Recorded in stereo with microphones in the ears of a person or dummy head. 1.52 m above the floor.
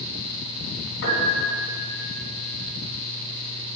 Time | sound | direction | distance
1.0 | a piano | 65° left (ahead or behind) | 3 m